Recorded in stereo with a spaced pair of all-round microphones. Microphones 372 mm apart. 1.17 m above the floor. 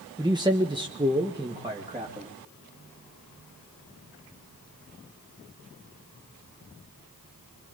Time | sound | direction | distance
0.2 | a man speaking | 10° right (ahead or behind) | 0.9 m